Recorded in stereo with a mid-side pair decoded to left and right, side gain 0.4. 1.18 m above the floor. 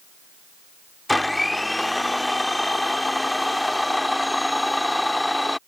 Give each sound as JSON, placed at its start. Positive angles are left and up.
{"t": 1.1, "sound": "a blender", "azimuth_deg": 10}